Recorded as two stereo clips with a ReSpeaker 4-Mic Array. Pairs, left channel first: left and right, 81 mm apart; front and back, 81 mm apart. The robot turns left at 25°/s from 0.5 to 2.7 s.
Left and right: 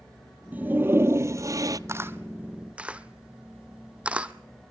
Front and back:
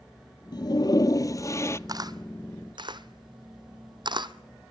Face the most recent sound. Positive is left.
turn(degrees=-165)